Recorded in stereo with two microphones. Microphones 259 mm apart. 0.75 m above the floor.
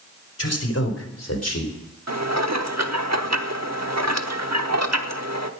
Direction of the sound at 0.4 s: 65° left (ahead or behind).